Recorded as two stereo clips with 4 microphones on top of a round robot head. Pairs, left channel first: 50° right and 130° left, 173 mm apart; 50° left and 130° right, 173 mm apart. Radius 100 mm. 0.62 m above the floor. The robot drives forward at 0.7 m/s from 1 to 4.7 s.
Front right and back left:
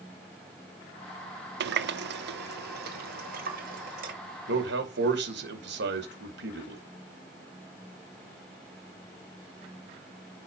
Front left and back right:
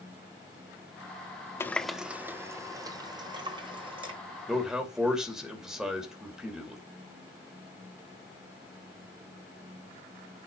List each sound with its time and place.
1.6 s a running tap: 125° left, 0.6 m; by 4.1 s 170° left, 2 m
4.5 s a man speaking: 140° left, 2.5 m; by 6.8 s 145° left, 2.5 m